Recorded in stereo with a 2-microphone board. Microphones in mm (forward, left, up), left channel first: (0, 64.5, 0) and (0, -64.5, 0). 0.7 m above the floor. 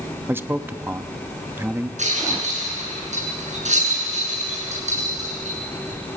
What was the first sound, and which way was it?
A man speaking, 15° right (ahead or behind).